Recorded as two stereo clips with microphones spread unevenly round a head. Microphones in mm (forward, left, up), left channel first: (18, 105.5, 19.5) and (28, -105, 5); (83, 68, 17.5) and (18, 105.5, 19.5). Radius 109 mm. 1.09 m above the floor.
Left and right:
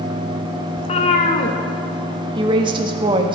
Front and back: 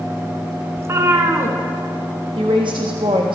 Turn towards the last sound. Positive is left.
turn(degrees=-155)